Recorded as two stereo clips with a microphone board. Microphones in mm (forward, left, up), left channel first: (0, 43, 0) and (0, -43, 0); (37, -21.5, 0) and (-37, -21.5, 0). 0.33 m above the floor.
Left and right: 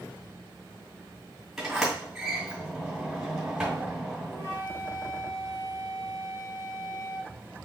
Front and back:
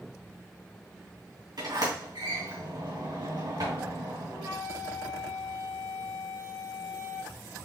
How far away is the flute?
About 3 m.